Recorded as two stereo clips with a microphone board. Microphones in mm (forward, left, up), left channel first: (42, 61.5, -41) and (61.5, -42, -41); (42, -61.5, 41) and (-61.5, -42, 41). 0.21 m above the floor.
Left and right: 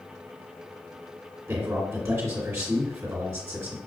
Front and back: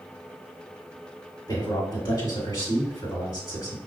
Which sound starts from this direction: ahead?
A man speaking, at 1.5 s.